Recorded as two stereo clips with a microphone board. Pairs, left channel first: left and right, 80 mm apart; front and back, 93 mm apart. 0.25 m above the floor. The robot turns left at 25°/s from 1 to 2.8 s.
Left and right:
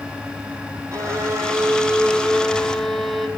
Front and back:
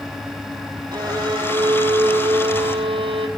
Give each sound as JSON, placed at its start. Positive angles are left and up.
{"t": 0.9, "sound": "a violin", "azimuth_deg": -135, "distance_m": 1.8}